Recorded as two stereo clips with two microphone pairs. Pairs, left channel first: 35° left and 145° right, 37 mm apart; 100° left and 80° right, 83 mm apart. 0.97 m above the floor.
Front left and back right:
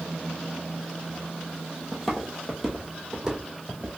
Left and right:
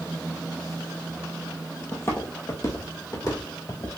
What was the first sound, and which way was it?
Footsteps, 120° left.